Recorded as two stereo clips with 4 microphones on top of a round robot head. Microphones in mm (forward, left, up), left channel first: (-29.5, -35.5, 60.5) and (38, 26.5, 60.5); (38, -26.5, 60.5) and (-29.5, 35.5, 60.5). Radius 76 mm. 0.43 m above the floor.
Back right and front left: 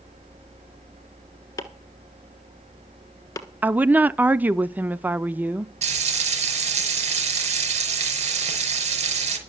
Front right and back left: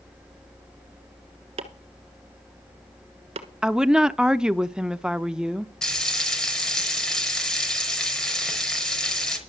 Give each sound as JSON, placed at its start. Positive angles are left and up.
{"t": 1.6, "sound": "chopping", "azimuth_deg": 165, "distance_m": 1.3}
{"t": 3.6, "sound": "a woman speaking", "azimuth_deg": 70, "distance_m": 0.8}
{"t": 5.8, "sound": "frying", "azimuth_deg": 40, "distance_m": 5.0}